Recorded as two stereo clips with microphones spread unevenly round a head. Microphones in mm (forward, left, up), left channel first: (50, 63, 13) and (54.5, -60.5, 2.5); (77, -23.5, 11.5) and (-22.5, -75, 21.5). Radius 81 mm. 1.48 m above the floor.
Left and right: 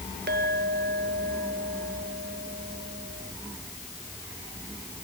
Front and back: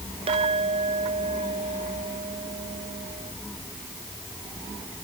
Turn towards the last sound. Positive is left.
turn(degrees=-125)